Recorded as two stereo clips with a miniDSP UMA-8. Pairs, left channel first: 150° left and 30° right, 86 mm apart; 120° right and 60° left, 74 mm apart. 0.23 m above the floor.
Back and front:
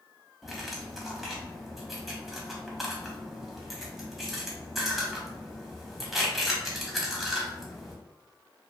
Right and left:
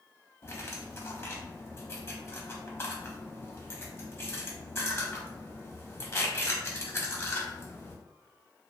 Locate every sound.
0.4 s cutlery clinking: 120° right, 0.6 m